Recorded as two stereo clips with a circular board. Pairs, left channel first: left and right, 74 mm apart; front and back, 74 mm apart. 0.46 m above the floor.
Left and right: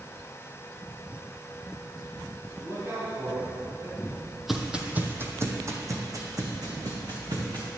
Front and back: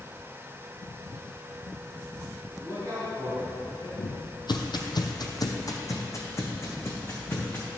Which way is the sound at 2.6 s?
140° right.